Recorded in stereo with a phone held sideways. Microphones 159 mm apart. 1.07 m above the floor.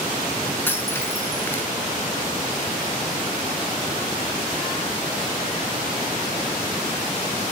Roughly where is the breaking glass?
Centre.